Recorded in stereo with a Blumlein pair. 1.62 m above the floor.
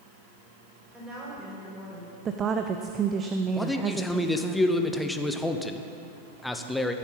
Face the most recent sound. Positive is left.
turn(degrees=5)